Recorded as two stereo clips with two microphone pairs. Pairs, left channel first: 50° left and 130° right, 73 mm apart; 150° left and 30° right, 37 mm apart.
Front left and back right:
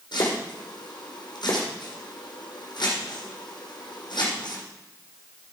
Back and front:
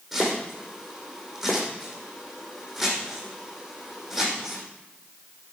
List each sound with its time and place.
0.1 s chopping: 60° left, 5 m